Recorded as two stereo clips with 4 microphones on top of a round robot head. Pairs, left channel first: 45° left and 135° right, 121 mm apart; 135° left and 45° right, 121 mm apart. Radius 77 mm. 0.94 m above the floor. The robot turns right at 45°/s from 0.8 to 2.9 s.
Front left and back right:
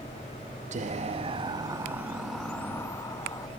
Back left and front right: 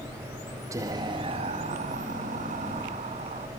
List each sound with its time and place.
0.7 s whispering: 110° right, 1.3 m; by 3.5 s 15° right, 1.3 m